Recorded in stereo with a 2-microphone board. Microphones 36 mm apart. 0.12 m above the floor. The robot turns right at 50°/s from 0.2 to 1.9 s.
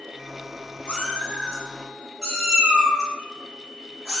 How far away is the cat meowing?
About 1.1 m.